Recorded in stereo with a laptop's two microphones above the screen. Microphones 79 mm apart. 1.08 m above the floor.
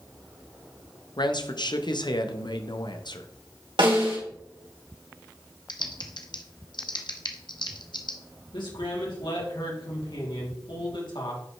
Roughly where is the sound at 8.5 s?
Left.